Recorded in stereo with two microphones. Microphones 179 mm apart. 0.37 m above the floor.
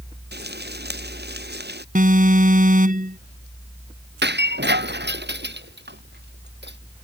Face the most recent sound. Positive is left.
turn(degrees=-75)  # may be behind; listen again after turning